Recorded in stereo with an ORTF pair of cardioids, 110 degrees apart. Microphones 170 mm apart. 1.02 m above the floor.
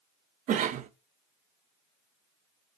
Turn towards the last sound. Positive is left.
turn(degrees=-50)